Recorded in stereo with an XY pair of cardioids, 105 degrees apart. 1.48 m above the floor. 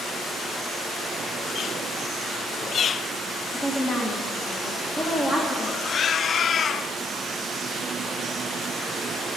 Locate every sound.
3.5 s a woman speaking: 30° left, 1.4 m